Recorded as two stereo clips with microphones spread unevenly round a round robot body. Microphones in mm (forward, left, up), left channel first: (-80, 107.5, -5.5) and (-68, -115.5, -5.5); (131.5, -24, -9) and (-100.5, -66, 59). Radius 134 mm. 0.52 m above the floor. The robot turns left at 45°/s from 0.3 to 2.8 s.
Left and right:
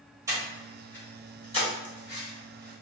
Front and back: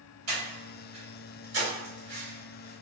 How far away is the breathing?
About 1.7 m.